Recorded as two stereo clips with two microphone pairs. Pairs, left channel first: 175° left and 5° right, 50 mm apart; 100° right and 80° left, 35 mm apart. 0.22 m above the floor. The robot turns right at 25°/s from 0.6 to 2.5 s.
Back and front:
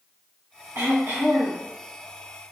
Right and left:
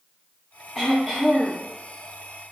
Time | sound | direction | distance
0.8 | throat clearing | 20° right | 1.8 m